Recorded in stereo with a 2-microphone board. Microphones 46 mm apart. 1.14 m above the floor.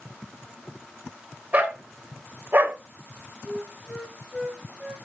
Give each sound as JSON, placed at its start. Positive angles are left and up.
{"t": 1.5, "sound": "a dog barking", "side_deg": -35, "distance_m": 1.5}
{"t": 3.5, "sound": "a flute", "side_deg": 5, "distance_m": 2.5}